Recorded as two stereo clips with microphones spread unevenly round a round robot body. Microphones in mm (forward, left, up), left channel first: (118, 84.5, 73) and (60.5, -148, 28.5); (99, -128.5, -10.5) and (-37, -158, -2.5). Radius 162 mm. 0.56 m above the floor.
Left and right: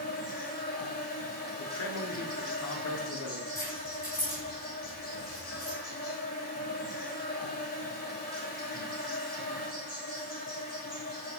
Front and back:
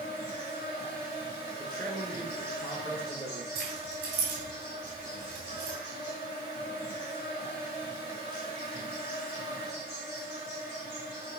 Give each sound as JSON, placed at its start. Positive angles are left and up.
{"t": 0.0, "sound": "an insect", "azimuth_deg": 20, "distance_m": 2.5}
{"t": 1.6, "sound": "a man speaking", "azimuth_deg": 90, "distance_m": 1.1}
{"t": 3.5, "sound": "keys jangling", "azimuth_deg": 160, "distance_m": 1.8}